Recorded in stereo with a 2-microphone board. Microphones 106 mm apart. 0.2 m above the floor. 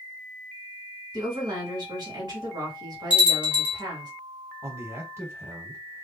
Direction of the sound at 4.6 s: 25° right (ahead or behind).